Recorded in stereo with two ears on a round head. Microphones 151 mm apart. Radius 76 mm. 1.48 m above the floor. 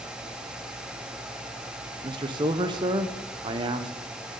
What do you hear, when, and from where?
2.0 s a man speaking: 25° right (ahead or behind), 0.8 m